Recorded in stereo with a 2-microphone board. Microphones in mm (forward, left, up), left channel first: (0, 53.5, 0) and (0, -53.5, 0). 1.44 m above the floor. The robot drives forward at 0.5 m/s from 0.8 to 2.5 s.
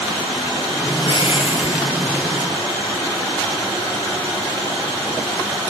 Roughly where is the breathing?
Left.